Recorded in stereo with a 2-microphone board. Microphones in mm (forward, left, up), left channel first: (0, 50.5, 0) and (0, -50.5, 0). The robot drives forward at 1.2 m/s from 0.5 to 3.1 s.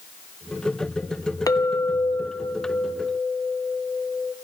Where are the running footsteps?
No running footsteps in this recording.